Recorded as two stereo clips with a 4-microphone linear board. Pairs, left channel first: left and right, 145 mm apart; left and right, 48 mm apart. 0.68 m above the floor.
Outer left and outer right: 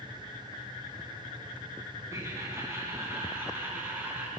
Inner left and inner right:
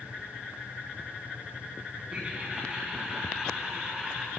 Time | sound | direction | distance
2.1 | laughter | 20° right (ahead or behind) | 7.5 m